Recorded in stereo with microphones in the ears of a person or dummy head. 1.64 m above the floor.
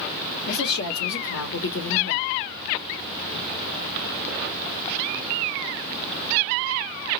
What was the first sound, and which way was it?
A woman speaking, 60° left (ahead or behind).